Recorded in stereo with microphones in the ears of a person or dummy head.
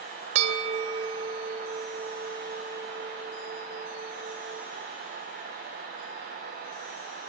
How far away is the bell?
About 3 m.